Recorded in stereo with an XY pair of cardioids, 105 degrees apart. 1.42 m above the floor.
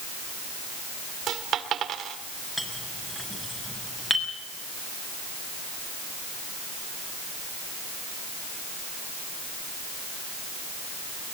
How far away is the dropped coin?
About 2.5 m.